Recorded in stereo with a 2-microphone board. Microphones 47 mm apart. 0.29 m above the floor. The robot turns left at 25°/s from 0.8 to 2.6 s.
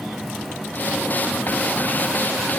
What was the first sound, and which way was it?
Only background noise.